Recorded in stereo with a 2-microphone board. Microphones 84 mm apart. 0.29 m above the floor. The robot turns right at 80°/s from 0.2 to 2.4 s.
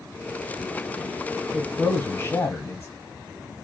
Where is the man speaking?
Straight ahead, 1.0 m; by 2.9 s 70° left, 1.0 m.